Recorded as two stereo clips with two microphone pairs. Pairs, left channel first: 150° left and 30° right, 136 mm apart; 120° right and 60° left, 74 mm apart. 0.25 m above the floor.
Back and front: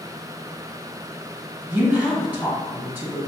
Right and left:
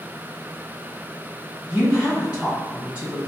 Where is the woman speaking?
20° left, 1.3 m.